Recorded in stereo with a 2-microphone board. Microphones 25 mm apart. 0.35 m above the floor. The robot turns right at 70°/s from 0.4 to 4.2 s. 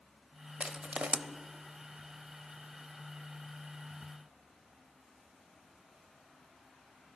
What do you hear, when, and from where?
0.6 s crushing: 50° right (ahead or behind), 0.6 m; by 1.2 s 55° right (ahead or behind), 0.6 m